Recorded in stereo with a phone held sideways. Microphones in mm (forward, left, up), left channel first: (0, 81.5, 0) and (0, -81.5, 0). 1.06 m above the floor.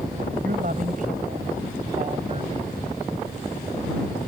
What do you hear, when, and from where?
0.4 s a woman speaking: 65° right (ahead or behind); by 2.8 s 35° right (ahead or behind)